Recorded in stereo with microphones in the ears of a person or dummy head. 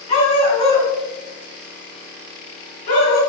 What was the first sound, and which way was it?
A dog barking, 35° left (ahead or behind).